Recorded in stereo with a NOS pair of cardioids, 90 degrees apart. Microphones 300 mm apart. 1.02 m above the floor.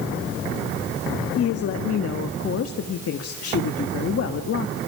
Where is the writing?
No writing in this recording.